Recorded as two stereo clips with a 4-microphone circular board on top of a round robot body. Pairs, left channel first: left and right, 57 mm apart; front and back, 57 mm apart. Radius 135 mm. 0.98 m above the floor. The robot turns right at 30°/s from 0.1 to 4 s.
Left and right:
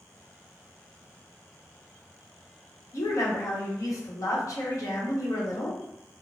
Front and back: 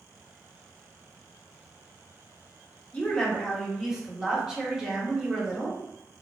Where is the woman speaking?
65° left, 1.0 m; by 5.8 s 100° left, 1.0 m.